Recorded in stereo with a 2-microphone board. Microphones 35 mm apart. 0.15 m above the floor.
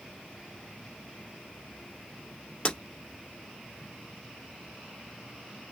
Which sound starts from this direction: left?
Breaking glass, at 2.6 s.